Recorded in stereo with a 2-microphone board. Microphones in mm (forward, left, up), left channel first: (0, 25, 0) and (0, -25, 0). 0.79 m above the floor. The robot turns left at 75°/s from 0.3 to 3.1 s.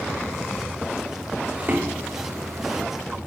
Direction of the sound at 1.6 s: 35° right (ahead or behind).